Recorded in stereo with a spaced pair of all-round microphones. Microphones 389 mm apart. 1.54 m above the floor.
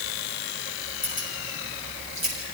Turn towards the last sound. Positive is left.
turn(degrees=70)  # may be behind; listen again after turning